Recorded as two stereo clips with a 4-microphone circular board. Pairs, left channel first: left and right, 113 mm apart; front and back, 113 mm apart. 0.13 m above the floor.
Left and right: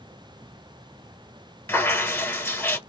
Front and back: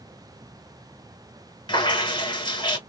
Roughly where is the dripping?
Ahead left.